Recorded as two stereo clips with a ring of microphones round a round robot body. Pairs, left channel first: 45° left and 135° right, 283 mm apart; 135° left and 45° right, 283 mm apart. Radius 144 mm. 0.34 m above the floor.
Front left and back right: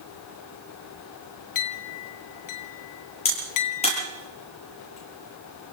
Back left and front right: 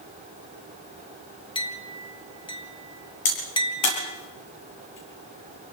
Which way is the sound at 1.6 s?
60° left.